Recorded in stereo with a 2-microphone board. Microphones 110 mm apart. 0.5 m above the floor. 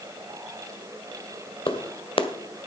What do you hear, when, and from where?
1.7 s a clap: 60° left (ahead or behind), 1.4 m